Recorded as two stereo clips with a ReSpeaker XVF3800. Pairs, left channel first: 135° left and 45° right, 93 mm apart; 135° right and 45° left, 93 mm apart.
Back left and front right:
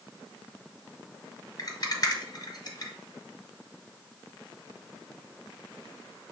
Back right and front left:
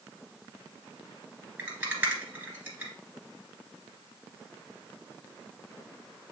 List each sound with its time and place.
1.6 s a rattle: 115° left, 2 m